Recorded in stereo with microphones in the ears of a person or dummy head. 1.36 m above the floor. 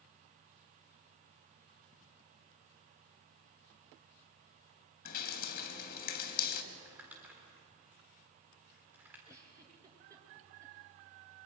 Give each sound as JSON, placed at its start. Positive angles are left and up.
{"t": 5.0, "sound": "dripping", "side_deg": 50, "distance_m": 2.5}
{"t": 6.7, "sound": "crumpling", "side_deg": -10, "distance_m": 4.0}
{"t": 9.3, "sound": "a giggle", "side_deg": -20, "distance_m": 4.0}